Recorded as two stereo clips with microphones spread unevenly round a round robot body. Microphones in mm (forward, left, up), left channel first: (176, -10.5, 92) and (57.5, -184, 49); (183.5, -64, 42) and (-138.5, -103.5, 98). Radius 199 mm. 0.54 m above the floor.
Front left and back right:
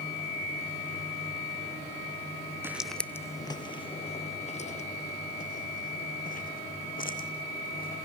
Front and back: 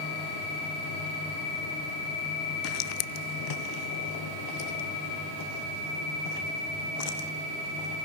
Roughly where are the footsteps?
Ahead right.